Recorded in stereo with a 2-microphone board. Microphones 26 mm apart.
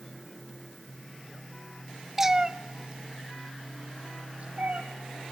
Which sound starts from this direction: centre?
A cat meowing, at 2.2 s.